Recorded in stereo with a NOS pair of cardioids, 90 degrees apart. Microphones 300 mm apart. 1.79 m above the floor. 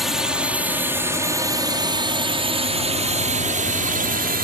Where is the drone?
Straight ahead; by 4.5 s 30° right.